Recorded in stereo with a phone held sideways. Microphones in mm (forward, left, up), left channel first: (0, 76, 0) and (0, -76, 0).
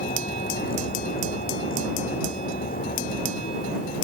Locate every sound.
0.0 s a vehicle: 70° left (ahead or behind)